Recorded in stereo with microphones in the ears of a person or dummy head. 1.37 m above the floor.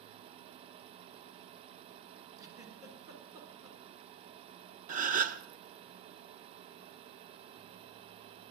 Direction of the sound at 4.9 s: 45° right (ahead or behind).